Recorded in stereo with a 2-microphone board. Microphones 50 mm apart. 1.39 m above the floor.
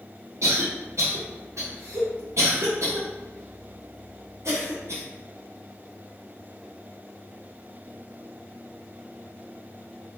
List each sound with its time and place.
0.4 s a cough: 70° right (ahead or behind), 0.8 m